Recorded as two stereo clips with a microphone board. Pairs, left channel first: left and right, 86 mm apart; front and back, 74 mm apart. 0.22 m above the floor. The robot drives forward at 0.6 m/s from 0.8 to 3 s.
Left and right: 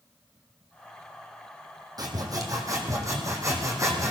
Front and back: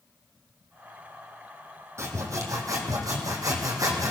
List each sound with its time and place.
2.0 s sawing: 130° right, 1.9 m; by 4.1 s 140° right, 2.5 m